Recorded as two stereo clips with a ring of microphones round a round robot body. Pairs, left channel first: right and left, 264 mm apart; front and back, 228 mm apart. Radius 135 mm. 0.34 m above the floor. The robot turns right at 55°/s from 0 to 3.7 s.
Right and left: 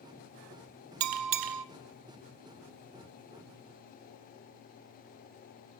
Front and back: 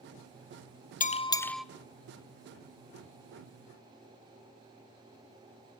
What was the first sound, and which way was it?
A bell, 55° left.